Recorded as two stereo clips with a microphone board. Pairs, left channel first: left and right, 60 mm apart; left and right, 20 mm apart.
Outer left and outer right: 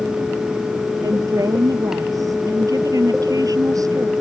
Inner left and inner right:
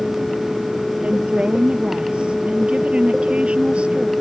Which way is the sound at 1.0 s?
75° right (ahead or behind).